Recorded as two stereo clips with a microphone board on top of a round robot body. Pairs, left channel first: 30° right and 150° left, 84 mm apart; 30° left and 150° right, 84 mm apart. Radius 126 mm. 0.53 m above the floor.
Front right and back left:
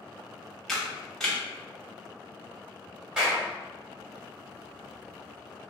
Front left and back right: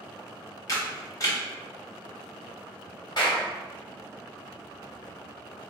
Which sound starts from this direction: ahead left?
A camera shutter, at 0.7 s.